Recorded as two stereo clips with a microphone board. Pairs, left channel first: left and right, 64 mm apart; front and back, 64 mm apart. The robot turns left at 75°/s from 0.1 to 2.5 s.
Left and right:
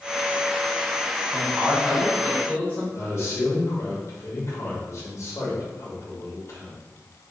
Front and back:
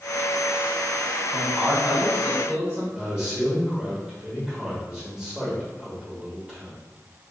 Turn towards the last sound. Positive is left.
turn(degrees=100)